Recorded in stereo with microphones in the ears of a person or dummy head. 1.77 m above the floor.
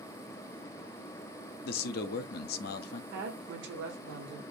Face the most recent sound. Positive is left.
turn(degrees=-70)  # may be behind; listen again after turning